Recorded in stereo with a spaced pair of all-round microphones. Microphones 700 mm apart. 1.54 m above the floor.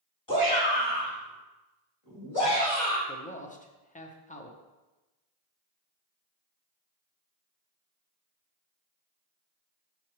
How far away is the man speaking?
About 0.8 m.